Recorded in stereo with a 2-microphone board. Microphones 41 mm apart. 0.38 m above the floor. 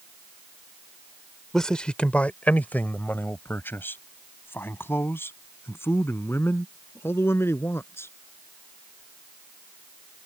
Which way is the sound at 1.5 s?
10° left (ahead or behind).